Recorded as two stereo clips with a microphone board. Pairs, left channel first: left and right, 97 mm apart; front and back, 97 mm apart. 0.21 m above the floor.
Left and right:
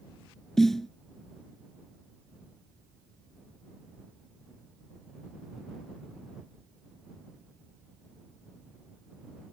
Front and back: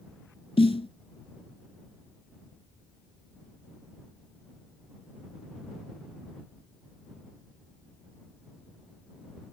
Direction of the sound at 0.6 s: 5° left.